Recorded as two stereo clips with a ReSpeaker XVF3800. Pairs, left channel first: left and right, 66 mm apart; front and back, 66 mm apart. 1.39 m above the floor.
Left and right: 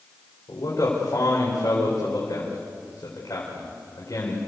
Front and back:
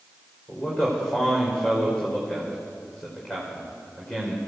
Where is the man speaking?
75° left, 4.5 m.